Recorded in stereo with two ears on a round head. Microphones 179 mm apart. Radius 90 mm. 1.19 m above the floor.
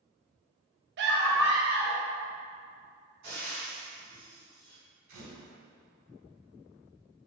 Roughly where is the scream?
Right.